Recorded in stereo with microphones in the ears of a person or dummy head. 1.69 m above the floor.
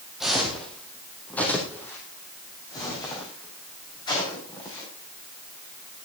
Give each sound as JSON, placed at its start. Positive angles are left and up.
{"t": 0.2, "sound": "footsteps", "side_deg": 0, "distance_m": 3.5}